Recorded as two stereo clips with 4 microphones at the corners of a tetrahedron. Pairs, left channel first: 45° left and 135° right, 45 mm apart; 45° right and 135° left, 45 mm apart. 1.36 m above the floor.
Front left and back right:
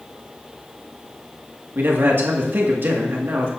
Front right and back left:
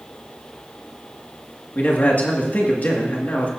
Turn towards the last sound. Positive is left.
turn(degrees=-95)